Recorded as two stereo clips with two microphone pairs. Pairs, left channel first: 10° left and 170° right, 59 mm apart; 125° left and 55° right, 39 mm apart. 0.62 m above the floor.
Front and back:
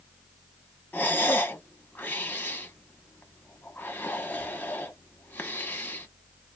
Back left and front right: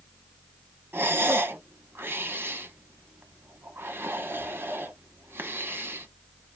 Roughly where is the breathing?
Ahead right.